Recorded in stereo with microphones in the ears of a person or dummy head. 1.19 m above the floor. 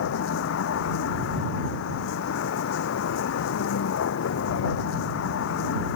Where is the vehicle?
75° left (ahead or behind).